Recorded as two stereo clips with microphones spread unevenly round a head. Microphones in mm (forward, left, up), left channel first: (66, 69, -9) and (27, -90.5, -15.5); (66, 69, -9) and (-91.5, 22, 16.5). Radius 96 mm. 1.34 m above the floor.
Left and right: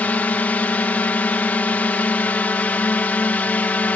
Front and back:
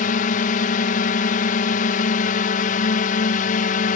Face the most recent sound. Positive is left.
turn(degrees=0)